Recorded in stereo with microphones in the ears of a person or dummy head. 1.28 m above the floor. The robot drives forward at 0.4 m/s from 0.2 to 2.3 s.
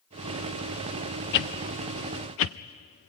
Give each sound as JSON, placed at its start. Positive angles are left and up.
{"t": 1.3, "sound": "a whoosh", "side_deg": 55, "distance_m": 0.6}